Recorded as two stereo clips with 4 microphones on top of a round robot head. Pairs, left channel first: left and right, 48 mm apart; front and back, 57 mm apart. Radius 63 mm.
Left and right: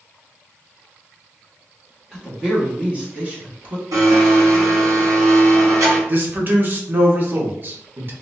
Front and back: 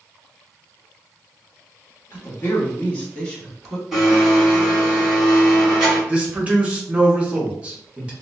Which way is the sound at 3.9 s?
95° right.